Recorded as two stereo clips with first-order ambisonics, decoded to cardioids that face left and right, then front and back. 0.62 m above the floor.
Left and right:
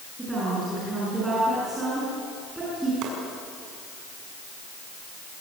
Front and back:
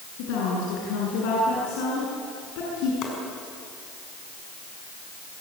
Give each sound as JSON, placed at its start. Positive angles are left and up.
{"t": 0.2, "sound": "a woman speaking", "azimuth_deg": -10, "distance_m": 7.5}
{"t": 3.0, "sound": "chopping", "azimuth_deg": -45, "distance_m": 6.5}